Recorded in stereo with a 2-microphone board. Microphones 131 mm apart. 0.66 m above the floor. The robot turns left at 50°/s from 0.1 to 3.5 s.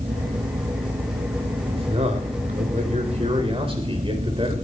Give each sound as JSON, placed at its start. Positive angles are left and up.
{"t": 1.7, "sound": "a man speaking", "azimuth_deg": -40, "distance_m": 3.5}